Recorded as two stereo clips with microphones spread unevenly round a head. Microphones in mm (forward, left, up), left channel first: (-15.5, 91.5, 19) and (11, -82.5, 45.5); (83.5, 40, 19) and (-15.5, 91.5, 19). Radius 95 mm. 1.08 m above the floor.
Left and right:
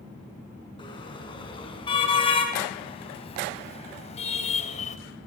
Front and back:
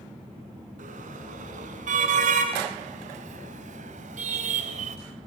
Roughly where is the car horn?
Behind.